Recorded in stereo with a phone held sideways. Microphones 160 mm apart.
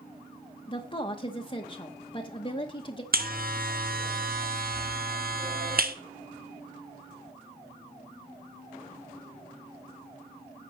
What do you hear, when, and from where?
0.7 s a woman speaking: 30° left (ahead or behind), 0.9 m
3.1 s a buzzer: 65° right (ahead or behind), 0.9 m